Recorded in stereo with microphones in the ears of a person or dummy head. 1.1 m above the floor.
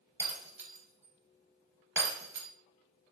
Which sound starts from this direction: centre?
Breaking glass, at 0.2 s.